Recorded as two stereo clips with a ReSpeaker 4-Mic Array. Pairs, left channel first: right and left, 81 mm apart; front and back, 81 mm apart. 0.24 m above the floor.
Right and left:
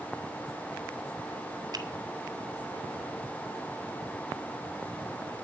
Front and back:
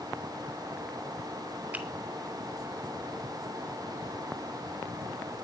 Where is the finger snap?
115° left, 2.5 m.